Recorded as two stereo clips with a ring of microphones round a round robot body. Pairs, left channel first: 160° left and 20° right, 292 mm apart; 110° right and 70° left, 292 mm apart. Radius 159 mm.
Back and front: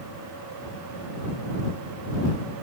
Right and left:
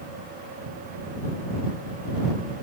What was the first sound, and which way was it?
Only background noise.